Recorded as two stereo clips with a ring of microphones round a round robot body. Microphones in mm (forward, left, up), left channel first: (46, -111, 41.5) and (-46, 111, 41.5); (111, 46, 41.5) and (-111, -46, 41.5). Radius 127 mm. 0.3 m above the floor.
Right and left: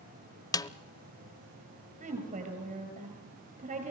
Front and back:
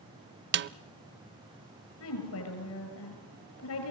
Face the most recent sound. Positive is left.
turn(degrees=50)